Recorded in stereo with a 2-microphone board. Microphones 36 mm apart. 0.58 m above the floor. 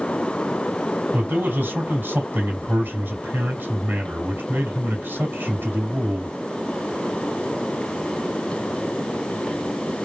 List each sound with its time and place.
1.1 s a man speaking: 75° right (ahead or behind), 3 m